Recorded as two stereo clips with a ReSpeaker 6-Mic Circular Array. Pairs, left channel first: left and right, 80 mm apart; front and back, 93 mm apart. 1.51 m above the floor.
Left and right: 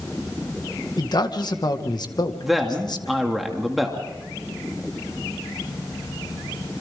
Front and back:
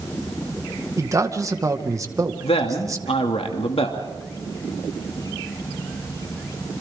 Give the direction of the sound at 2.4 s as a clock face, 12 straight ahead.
12 o'clock.